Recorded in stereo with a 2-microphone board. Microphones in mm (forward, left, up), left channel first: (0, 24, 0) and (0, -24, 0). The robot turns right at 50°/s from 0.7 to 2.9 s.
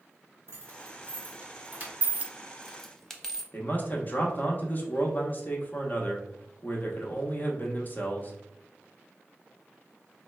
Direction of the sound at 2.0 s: 35° right (ahead or behind).